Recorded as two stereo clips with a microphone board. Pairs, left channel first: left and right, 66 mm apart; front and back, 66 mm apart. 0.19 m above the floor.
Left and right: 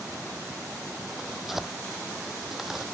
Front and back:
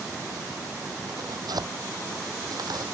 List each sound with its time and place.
1.1 s tearing paper: 175° right